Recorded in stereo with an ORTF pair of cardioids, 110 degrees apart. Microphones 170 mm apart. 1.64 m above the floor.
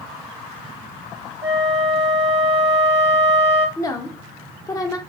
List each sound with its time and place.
1.4 s a flute: 25° right, 0.7 m
3.8 s a woman speaking: 20° left, 0.7 m